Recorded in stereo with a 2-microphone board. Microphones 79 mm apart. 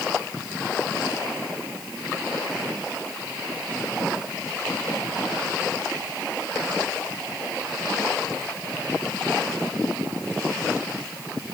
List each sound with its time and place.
Only background noise.